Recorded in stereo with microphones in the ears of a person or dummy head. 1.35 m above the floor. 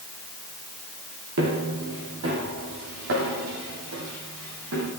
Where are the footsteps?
55° right (ahead or behind), 2.5 m; by 4.9 s 70° right (ahead or behind), 5 m.